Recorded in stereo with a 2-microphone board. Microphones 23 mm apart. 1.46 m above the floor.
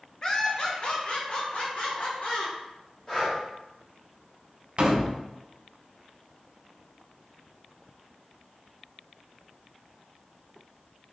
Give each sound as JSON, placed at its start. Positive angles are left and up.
{"t": 0.2, "sound": "laughter", "side_deg": 25, "distance_m": 0.8}
{"t": 3.1, "sound": "breathing", "side_deg": 30, "distance_m": 1.7}
{"t": 4.8, "sound": "a door slam", "side_deg": -50, "distance_m": 0.6}